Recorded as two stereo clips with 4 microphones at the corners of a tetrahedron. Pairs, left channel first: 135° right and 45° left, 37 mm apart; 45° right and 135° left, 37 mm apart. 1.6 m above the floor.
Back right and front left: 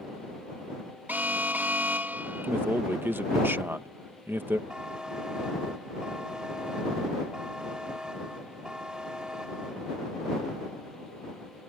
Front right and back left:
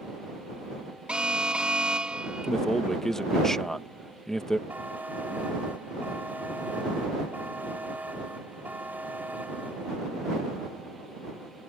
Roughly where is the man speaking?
Ahead left.